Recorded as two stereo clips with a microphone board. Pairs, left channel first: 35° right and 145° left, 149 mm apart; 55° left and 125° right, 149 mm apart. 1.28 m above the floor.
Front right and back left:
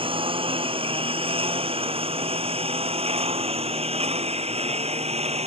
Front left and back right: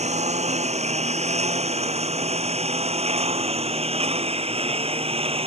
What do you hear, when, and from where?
0.0 s a lawn mower: 165° right; by 5.5 s 170° right